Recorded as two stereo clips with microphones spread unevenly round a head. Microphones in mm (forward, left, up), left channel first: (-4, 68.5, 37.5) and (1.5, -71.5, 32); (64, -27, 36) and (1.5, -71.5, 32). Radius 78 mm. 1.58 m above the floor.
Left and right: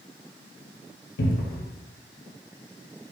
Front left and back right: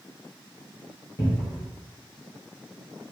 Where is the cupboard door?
95° left, 0.5 m.